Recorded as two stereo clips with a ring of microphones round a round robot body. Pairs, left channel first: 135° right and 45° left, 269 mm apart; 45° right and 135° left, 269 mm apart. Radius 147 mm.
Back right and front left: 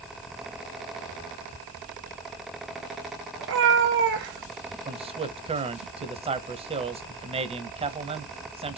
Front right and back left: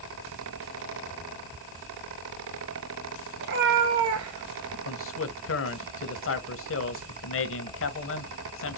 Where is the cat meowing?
85° left, 2.5 m; by 4.8 s 105° left, 3.5 m.